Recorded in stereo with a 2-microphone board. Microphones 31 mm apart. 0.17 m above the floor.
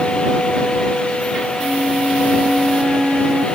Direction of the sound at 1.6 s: 35° right (ahead or behind).